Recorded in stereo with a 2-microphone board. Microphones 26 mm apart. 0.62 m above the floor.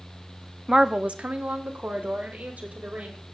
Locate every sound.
0.7 s a woman speaking: 10° right (ahead or behind), 0.6 m; by 3.2 s 75° right (ahead or behind), 2.5 m